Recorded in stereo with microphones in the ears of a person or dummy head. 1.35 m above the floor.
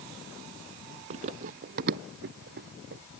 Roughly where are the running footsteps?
Right.